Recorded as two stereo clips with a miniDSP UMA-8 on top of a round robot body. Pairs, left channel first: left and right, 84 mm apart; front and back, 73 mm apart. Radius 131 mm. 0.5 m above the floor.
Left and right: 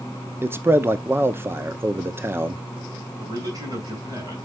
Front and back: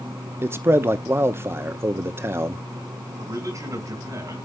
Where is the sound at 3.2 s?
135° right, 6 m.